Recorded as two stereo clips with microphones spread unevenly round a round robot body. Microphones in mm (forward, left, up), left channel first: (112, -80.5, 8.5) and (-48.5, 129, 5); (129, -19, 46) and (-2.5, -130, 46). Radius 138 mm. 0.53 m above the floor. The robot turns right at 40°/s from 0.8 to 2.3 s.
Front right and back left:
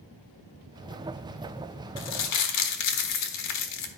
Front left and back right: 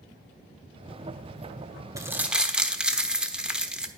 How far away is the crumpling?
About 1.2 m.